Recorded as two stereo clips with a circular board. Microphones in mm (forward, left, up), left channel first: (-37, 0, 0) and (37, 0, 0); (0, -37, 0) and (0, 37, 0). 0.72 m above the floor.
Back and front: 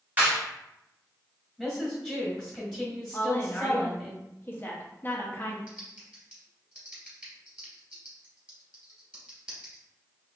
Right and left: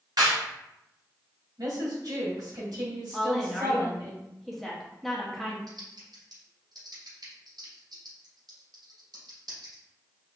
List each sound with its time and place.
0.2 s a clap: 65° left, 1.9 m
1.6 s a woman speaking: 85° left, 1.8 m
3.1 s a woman speaking: 175° right, 0.9 m
5.7 s typing on a keyboard: 75° left, 2 m